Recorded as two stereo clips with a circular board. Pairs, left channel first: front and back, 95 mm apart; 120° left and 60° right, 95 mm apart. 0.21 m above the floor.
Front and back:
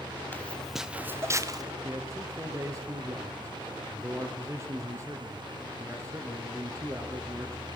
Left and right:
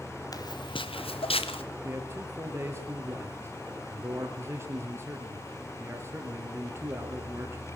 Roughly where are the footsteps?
Left.